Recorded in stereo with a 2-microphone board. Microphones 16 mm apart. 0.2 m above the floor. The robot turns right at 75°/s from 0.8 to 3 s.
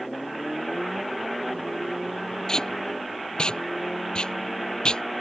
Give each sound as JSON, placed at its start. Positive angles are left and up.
{"t": 2.5, "sound": "tape being pulled", "side_deg": 45}